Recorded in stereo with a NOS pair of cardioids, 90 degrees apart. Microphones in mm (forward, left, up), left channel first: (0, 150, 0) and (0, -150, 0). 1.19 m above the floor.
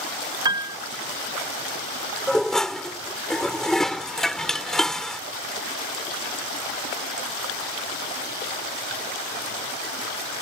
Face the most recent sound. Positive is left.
turn(degrees=0)